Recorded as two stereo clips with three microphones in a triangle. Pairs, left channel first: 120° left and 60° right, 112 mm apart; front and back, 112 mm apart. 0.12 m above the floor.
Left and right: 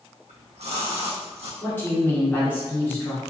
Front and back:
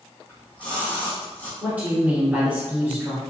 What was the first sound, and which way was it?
A splash, 75° right.